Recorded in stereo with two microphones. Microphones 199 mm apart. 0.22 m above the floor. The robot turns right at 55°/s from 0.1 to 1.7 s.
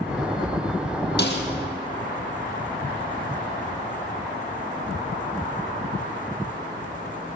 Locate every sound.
1.2 s a snare drum: 55° left (ahead or behind), 3 m; by 1.4 s 70° left (ahead or behind), 3 m